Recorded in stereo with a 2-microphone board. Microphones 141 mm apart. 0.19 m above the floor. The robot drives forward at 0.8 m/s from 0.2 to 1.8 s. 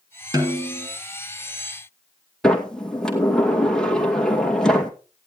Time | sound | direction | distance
0.3 | a snare drum | 30° right (ahead or behind) | 3 m
2.4 | a sliding door | 5° left (ahead or behind) | 2.5 m